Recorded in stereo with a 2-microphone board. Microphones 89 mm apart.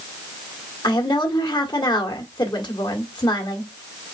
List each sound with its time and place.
0.8 s a woman speaking: 55° left (ahead or behind), 1.8 m